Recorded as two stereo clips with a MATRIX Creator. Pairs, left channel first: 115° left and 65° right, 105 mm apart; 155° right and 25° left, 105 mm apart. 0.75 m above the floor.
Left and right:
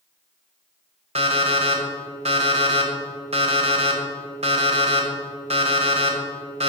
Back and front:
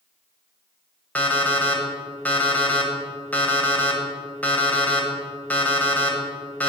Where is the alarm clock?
80° right, 1.5 m.